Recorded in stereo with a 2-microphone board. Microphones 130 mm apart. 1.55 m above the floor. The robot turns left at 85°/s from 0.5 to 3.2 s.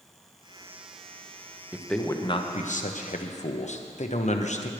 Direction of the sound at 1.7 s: 170° right.